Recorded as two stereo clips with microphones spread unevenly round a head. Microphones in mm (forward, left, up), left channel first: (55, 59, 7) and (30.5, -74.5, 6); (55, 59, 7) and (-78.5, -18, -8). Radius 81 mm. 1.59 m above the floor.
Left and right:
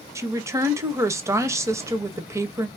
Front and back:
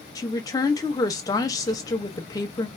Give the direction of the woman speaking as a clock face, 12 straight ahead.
1 o'clock.